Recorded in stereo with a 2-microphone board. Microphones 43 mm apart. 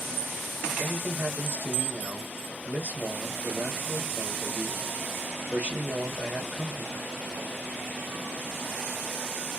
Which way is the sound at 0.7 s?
50° right (ahead or behind).